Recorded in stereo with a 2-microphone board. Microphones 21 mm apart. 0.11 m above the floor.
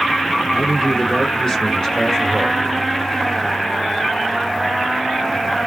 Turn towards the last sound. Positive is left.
turn(degrees=35)  # may be behind; listen again after turning